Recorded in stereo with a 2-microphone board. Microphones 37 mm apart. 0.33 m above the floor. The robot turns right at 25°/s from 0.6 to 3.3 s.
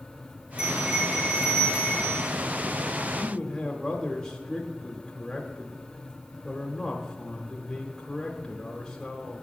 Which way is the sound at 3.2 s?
15° left (ahead or behind).